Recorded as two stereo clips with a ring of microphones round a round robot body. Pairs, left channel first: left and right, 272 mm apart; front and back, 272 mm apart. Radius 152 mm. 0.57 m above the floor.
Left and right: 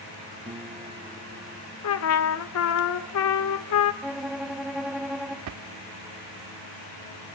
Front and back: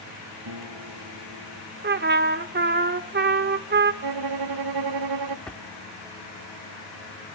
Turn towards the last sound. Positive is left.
turn(degrees=-85)